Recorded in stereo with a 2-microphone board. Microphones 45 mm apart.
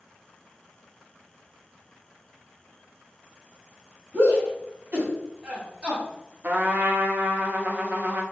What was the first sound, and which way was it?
A shout, 65° right (ahead or behind).